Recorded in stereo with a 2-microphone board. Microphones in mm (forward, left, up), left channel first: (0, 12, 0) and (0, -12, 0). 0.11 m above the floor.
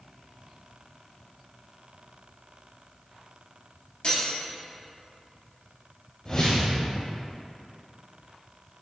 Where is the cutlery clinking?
50° left (ahead or behind), 1.4 m.